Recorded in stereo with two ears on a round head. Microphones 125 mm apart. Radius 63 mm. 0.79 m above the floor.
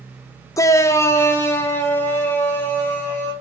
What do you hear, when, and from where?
0.6 s a shout: 20° left (ahead or behind), 0.6 m; by 3.3 s 15° left (ahead or behind), 4 m